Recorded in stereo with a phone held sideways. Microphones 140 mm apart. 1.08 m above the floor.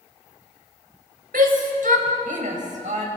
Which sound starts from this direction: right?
A shout, at 1.3 s.